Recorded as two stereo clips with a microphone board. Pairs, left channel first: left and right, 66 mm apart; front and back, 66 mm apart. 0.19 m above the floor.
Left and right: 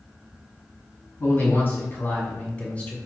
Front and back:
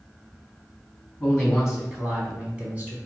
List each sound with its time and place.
1.2 s a man speaking: 85° left, 1.9 m; by 3.0 s 145° left, 1.9 m